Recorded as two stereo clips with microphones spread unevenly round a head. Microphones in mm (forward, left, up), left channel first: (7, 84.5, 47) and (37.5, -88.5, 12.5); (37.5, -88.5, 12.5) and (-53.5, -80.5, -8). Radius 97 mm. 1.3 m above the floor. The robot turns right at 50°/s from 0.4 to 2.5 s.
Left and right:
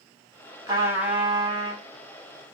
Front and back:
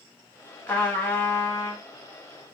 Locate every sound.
0.7 s a trumpet: 5° right, 0.9 m; by 1.8 s 55° left, 0.9 m